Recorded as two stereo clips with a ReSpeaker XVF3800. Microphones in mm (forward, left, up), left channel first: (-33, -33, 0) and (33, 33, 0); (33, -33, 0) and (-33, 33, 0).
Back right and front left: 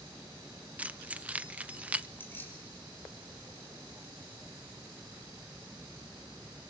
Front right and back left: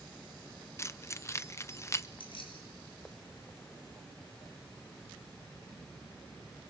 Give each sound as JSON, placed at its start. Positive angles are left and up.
{"t": 0.8, "sound": "keys jangling", "azimuth_deg": -15, "distance_m": 0.6}
{"t": 2.2, "sound": "keys jangling", "azimuth_deg": -70, "distance_m": 6.0}